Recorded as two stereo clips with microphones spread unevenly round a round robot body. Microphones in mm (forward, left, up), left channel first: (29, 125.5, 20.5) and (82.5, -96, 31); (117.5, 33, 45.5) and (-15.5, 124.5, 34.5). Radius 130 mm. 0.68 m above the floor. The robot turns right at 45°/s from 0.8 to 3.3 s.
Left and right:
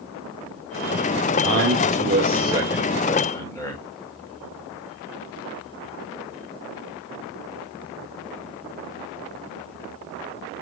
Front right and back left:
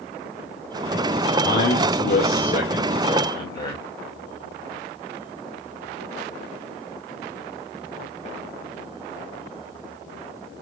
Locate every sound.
1.4 s a man speaking: 55° right, 2 m; by 3.8 s 30° left, 2 m